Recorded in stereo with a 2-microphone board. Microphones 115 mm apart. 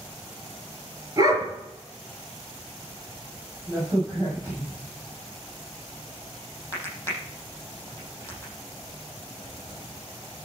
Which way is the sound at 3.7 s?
20° right (ahead or behind).